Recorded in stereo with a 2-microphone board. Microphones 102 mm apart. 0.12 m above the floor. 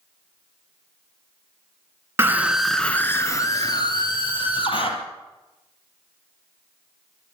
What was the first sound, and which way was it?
A scream, 25° right (ahead or behind).